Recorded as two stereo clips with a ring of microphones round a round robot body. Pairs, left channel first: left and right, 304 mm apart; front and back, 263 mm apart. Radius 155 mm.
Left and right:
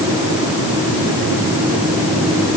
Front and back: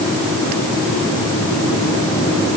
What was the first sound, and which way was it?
Only background noise.